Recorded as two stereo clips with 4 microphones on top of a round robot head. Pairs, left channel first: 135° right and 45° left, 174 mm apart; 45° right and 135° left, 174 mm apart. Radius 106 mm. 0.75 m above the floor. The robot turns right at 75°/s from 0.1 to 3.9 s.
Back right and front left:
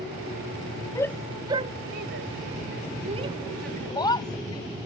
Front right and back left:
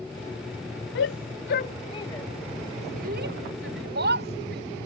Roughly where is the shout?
Ahead right.